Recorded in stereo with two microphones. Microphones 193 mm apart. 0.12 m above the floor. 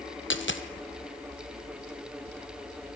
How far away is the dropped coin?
About 1.1 m.